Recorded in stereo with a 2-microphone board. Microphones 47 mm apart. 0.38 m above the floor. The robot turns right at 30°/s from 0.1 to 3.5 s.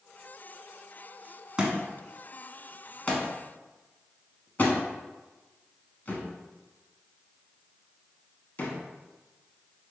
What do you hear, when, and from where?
1.6 s a thud: 20° right (ahead or behind), 0.7 m; by 8.8 s 40° left (ahead or behind), 0.7 m